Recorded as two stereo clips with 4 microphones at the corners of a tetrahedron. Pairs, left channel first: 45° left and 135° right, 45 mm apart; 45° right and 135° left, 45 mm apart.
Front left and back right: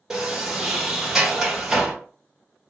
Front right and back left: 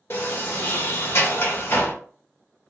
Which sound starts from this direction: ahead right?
A sliding door, at 0.1 s.